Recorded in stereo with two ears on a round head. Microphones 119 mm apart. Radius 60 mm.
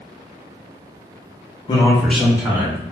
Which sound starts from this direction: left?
A man speaking, at 1.7 s.